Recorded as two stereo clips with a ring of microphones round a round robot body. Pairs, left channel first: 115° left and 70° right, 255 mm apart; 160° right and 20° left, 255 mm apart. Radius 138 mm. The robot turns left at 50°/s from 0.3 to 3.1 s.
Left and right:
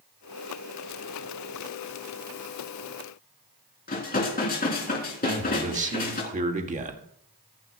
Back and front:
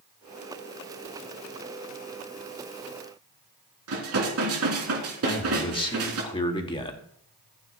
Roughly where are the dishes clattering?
Ahead left.